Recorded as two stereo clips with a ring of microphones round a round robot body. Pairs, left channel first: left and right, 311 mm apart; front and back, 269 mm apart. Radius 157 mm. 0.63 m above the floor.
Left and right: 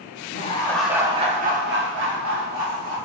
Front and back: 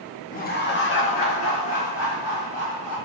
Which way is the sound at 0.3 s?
45° left.